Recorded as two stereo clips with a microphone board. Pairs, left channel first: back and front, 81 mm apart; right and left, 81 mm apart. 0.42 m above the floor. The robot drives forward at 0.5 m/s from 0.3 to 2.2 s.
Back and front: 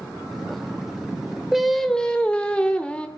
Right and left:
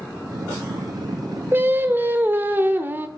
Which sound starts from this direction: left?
Singing, at 1.5 s.